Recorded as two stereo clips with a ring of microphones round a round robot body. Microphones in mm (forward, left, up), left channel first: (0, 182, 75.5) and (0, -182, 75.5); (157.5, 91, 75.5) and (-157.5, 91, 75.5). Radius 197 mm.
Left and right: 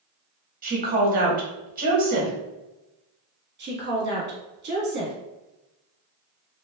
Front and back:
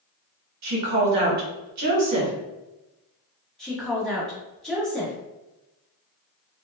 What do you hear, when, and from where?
0.6 s a woman speaking: 155° right, 1.0 m
3.6 s a woman speaking: 85° right, 1.0 m